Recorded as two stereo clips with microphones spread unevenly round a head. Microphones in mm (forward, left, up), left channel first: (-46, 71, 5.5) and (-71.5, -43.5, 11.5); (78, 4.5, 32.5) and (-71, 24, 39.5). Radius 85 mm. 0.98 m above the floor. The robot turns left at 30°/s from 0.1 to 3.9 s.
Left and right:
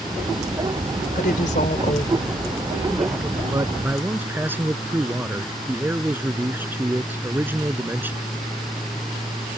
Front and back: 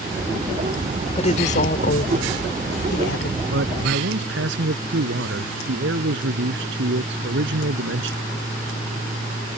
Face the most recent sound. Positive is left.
turn(degrees=-175)